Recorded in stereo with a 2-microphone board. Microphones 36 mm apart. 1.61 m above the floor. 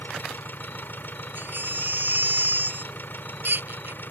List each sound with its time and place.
0.0 s an engine running: 70° left (ahead or behind)
1.4 s a baby crying: 65° right (ahead or behind)